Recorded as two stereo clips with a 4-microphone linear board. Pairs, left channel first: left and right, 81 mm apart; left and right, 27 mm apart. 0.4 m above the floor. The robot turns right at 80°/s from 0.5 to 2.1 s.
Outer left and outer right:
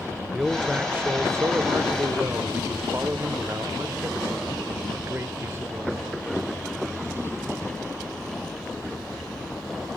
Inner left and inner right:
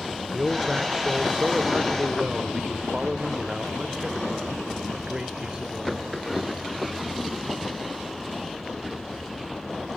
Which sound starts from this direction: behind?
A man speaking, at 0.3 s.